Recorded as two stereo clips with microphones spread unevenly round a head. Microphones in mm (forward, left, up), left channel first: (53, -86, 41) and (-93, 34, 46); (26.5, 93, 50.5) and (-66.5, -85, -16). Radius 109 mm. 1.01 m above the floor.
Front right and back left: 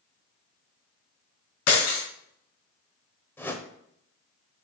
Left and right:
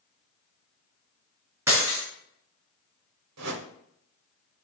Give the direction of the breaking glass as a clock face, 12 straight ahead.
1 o'clock.